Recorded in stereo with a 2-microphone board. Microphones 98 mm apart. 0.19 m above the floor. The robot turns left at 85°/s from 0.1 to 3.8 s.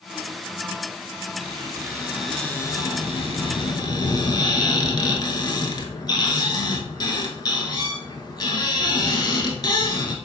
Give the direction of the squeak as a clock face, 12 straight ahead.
4 o'clock.